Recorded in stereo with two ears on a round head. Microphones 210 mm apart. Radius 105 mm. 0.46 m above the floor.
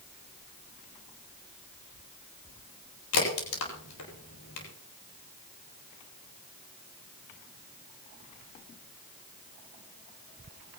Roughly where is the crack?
Left.